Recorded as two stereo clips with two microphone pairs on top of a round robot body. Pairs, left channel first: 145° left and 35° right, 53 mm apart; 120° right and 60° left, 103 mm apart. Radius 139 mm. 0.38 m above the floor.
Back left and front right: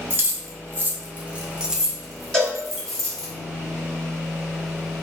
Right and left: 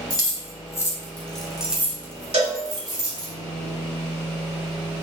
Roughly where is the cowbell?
Ahead left.